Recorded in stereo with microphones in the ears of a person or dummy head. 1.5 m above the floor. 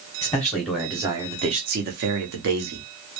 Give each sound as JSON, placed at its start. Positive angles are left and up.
{"t": 0.2, "sound": "a man speaking", "side_deg": 15, "distance_m": 0.8}